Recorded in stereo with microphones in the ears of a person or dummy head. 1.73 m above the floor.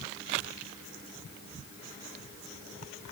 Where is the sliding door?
I don't hear a sliding door.